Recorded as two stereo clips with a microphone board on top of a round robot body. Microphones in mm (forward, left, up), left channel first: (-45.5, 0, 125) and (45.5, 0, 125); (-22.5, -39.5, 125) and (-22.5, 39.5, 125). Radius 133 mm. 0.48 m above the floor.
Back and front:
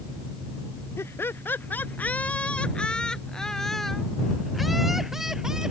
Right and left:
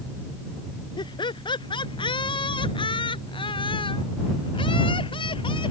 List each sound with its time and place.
1.0 s laughter: 115° right; by 5.7 s 85° right